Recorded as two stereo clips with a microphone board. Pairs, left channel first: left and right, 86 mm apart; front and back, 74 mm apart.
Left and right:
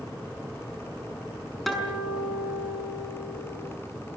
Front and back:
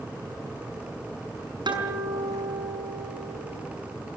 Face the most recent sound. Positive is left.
turn(degrees=180)